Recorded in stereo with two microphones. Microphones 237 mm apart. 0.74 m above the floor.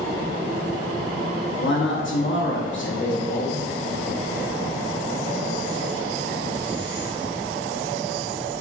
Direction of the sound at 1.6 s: 50° left (ahead or behind).